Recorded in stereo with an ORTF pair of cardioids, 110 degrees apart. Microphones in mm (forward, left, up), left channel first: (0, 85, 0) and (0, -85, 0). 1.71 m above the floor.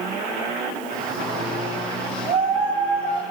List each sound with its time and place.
0.9 s a shout: 45° right, 8.5 m; by 3.2 s 40° right, 8 m